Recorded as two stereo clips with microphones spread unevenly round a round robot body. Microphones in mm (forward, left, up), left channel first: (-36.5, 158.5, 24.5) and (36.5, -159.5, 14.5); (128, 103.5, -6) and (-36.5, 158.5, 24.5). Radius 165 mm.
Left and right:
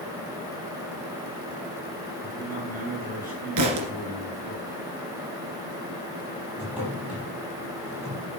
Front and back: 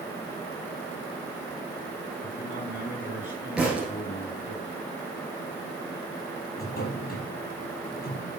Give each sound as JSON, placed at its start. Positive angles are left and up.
{"t": 2.2, "sound": "a man speaking", "azimuth_deg": -15, "distance_m": 7.5}
{"t": 3.6, "sound": "a thud", "azimuth_deg": -115, "distance_m": 1.8}
{"t": 6.6, "sound": "a drawer", "azimuth_deg": 10, "distance_m": 5.0}